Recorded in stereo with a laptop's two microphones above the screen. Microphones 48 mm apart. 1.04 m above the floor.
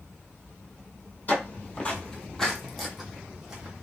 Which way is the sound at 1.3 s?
35° left (ahead or behind).